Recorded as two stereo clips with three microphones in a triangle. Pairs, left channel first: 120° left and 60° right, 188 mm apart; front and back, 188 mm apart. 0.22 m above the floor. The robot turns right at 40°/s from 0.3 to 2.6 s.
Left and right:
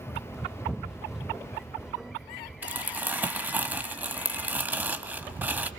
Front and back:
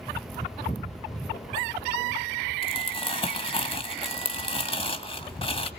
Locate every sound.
2.6 s crumpling: 10° left, 1.8 m